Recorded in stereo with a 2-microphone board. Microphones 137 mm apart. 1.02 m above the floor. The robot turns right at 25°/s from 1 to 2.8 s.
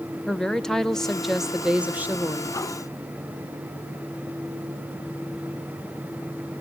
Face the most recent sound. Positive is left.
turn(degrees=-140)